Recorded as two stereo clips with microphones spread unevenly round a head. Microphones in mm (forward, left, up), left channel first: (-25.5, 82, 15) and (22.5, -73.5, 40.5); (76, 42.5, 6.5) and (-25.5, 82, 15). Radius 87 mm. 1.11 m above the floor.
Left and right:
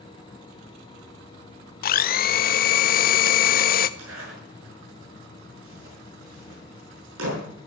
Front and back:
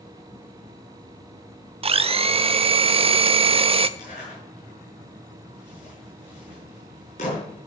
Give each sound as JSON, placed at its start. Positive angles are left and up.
{"t": 1.8, "sound": "a blender", "azimuth_deg": 125, "distance_m": 0.8}
{"t": 4.0, "sound": "a zipper", "azimuth_deg": -75, "distance_m": 8.0}